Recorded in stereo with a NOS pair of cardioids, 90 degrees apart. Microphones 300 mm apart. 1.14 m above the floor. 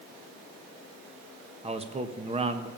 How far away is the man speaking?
About 1.4 m.